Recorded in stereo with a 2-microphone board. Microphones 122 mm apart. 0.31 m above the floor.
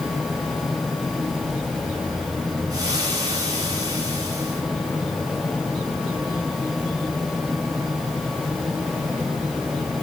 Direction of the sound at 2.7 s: 30° right (ahead or behind).